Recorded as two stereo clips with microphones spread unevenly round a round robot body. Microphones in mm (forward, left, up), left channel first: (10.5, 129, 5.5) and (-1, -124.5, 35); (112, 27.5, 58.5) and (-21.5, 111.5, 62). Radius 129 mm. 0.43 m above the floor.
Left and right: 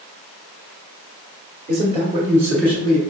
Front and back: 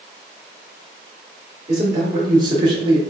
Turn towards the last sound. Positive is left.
turn(degrees=125)